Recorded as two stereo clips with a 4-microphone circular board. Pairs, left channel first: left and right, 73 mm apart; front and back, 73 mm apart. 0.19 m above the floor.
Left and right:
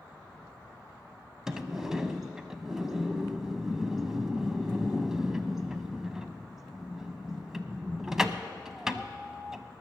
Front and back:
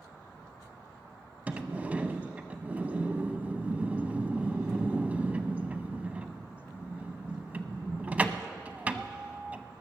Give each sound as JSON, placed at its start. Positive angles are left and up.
{"t": 1.5, "sound": "a sliding door", "azimuth_deg": -160, "distance_m": 0.6}